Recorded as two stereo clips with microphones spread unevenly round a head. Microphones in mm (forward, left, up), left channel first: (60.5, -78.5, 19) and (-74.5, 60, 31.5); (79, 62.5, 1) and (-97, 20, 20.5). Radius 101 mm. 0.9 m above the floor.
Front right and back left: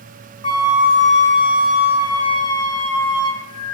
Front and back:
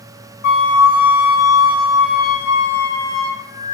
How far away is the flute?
About 1.6 m.